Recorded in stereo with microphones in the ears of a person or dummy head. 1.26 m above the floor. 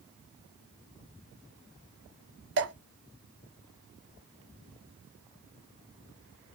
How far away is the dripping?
About 0.9 m.